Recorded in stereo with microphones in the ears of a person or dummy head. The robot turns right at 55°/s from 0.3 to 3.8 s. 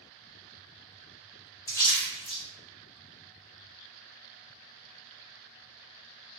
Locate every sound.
1.7 s a splash: 15° left (ahead or behind), 0.6 m; by 2.4 s 30° left (ahead or behind), 0.6 m